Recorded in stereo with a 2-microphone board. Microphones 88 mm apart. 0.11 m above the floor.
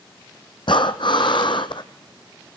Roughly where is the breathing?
Left.